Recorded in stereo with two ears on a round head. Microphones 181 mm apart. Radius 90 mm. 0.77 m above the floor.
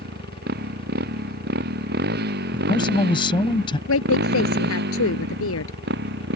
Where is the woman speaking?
75° left (ahead or behind).